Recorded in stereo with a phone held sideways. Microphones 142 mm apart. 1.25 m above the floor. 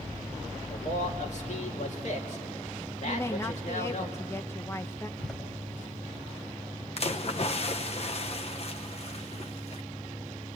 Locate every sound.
0.7 s a man speaking: 55° left (ahead or behind), 3 m
3.0 s a woman speaking: 20° left (ahead or behind), 1.0 m
5.2 s a door slam: centre (ahead or behind), 5 m
7.0 s a splash: 45° left (ahead or behind), 0.9 m